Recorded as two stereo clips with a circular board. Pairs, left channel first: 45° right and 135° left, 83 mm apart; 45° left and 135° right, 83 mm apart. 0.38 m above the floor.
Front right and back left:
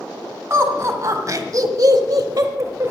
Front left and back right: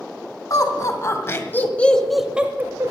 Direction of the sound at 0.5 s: 85° left.